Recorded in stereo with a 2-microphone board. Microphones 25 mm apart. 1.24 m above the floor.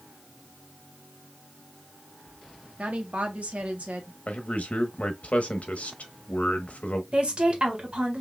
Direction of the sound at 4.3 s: 75° left (ahead or behind).